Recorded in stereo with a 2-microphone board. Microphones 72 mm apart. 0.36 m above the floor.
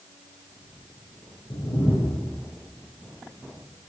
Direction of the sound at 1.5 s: 85° left.